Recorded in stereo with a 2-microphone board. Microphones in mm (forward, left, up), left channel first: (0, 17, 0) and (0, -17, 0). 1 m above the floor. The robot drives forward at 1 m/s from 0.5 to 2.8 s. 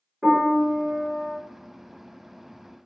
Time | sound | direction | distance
0.2 | a piano | 15° right (ahead or behind) | 2.5 m